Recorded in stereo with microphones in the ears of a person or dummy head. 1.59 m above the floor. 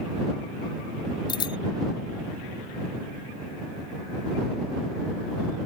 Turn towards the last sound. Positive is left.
turn(degrees=30)  # may be behind; listen again after turning